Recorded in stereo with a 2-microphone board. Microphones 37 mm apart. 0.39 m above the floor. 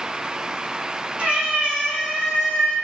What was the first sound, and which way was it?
A cat meowing, 30° right (ahead or behind).